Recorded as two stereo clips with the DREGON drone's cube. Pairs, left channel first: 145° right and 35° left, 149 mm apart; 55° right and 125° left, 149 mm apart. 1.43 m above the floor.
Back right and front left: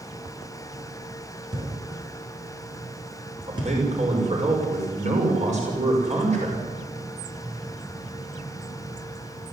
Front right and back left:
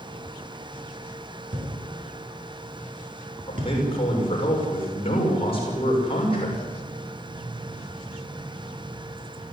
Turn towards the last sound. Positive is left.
turn(degrees=-5)